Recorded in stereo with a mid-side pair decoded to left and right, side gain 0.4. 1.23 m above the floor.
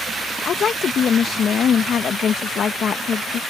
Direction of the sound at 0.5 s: 65° left.